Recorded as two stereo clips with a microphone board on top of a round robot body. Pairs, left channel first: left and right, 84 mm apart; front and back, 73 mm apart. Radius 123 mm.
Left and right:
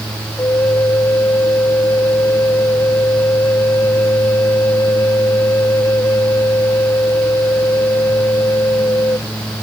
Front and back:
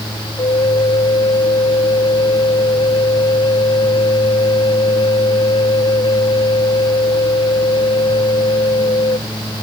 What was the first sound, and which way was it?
A flute, 25° left.